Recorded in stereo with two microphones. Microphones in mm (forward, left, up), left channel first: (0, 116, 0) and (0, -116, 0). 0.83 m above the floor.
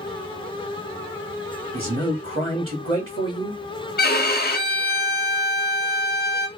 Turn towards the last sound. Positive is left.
turn(degrees=45)  # may be behind; listen again after turning